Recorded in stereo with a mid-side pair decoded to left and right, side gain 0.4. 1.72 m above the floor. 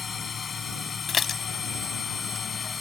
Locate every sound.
0.0 s a machine running: 45° left
1.1 s dishes clattering: 50° left